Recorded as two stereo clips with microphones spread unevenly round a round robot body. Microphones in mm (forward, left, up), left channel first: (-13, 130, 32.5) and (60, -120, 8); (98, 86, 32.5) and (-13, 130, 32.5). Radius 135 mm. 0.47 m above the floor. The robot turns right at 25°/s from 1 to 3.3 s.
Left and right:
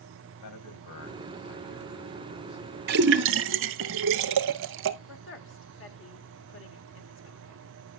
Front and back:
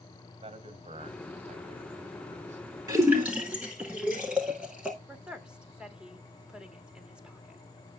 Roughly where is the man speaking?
Behind left.